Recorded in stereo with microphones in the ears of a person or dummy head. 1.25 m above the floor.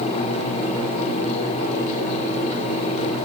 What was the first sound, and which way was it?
Only background noise.